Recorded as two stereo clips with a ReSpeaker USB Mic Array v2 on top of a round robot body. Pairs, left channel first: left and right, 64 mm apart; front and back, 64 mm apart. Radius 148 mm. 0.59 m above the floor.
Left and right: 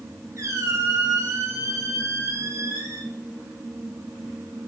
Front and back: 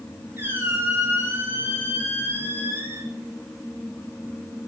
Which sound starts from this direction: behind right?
A squeak, at 0.4 s.